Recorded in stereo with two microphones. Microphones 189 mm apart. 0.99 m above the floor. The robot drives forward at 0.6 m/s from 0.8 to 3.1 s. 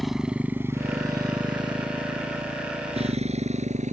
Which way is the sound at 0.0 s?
Centre (ahead or behind).